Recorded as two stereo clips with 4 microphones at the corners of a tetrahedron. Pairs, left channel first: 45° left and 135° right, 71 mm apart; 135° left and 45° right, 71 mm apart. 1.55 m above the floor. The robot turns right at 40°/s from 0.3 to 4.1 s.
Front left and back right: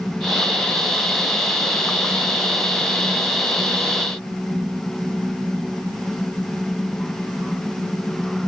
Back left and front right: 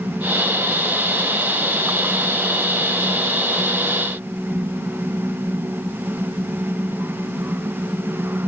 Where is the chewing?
I don't hear chewing.